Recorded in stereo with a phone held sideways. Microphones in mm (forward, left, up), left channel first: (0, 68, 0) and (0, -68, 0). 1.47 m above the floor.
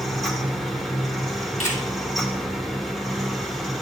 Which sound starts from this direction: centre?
A fan, at 0.0 s.